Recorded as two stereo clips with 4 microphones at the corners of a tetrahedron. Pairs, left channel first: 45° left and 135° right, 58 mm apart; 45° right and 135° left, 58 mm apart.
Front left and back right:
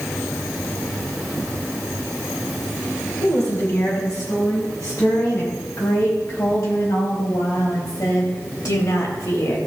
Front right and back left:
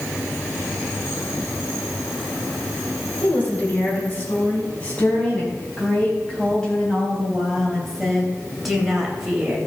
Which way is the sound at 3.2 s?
15° left.